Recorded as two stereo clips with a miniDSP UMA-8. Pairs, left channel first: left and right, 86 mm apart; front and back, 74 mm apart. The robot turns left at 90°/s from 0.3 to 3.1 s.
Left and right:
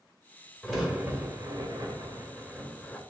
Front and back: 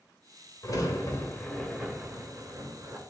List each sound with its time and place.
0.6 s a crack: straight ahead, 2.0 m; by 3.0 s 145° left, 2.0 m